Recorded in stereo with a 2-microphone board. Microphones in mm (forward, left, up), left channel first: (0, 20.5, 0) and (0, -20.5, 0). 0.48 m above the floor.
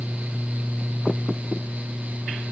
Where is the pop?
No pop in this recording.